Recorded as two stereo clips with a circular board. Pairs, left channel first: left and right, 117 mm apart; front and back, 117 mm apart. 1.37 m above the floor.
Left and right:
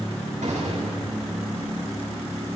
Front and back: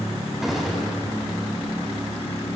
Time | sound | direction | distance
0.4 | a gunshot | 90° right | 6.5 m